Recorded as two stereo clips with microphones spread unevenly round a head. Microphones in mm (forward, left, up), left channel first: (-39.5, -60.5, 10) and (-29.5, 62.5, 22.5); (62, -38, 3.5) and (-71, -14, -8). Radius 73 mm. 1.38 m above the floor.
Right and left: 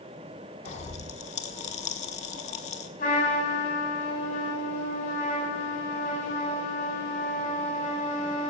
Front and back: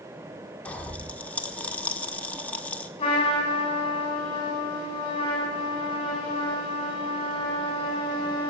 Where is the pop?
80° right, 1.2 m.